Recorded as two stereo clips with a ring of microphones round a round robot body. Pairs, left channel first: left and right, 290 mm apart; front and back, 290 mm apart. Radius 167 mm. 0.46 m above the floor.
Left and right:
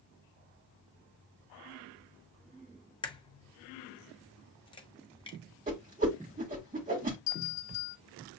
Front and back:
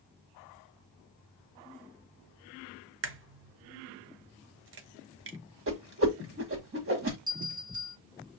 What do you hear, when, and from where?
3.0 s a crack: 155° left, 0.7 m
5.7 s a whoosh: 150° right, 1.6 m
7.3 s a bell: 110° left, 1.2 m